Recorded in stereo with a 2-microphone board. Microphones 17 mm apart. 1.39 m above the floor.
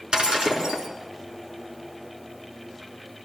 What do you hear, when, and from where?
0.1 s breaking glass: 75° right (ahead or behind), 4.5 m